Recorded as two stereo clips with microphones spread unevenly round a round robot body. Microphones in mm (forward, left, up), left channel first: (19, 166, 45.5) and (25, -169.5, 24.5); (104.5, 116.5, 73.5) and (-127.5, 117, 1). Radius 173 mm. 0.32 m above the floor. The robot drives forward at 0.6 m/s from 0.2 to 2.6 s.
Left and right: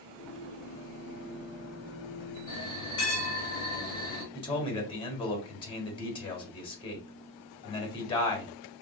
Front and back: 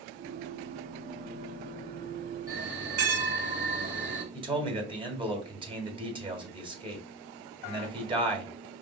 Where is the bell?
165° left, 3.5 m; by 4.2 s 170° left, 3.5 m.